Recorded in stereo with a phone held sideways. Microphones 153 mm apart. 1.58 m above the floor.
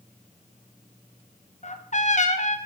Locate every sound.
1.6 s a trumpet: 50° left (ahead or behind), 1.0 m